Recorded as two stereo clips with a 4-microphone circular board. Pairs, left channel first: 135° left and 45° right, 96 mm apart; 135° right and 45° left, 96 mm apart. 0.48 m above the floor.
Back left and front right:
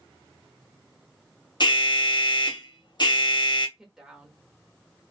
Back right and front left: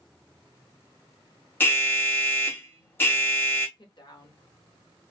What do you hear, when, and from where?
1.6 s an alarm: 160° left, 0.7 m
3.8 s a woman speaking: 125° right, 1.1 m